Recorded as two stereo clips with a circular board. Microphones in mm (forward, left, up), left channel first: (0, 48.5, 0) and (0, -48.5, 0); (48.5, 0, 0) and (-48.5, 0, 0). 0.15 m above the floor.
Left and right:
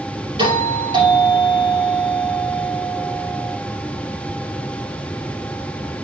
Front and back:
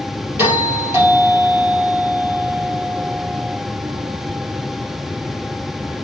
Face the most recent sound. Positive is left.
turn(degrees=-115)